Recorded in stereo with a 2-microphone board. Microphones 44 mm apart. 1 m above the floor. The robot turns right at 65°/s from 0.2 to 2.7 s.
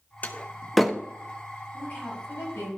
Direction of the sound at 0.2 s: 35° left (ahead or behind).